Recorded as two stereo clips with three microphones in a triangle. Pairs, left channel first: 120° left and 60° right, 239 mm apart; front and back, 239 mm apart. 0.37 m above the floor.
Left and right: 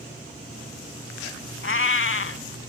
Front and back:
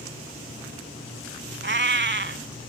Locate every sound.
1.6 s a cat meowing: 145° left, 0.6 m